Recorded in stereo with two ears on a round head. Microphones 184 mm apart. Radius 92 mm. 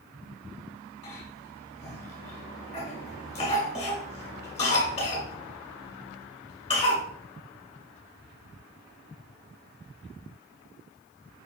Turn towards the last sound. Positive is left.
turn(degrees=30)  # may be behind; listen again after turning